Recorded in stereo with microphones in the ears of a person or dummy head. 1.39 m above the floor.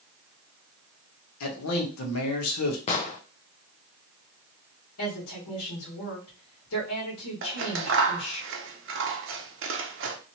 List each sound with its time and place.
1.4 s a man speaking: 80° left, 1.1 m
2.9 s an explosion: 30° left (ahead or behind), 0.6 m
5.0 s a woman speaking: 70° left (ahead or behind), 1.5 m
7.4 s scissors: 65° right (ahead or behind), 0.7 m